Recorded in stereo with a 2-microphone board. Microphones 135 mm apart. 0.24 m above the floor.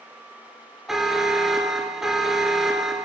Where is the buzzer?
5° right (ahead or behind), 1.2 m.